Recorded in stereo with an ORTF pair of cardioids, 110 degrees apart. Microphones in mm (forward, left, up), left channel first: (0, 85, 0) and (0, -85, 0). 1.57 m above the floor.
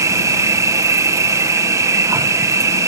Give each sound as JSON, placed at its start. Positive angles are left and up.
{"t": 0.0, "sound": "an insect", "azimuth_deg": -20}